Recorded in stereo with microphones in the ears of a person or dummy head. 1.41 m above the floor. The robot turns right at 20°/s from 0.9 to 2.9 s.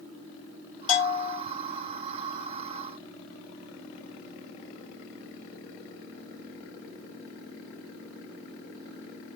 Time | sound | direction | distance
0.9 | a bell | 45° left (ahead or behind) | 3.5 m